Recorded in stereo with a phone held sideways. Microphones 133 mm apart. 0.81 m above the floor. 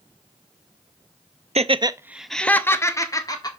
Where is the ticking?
I don't hear ticking.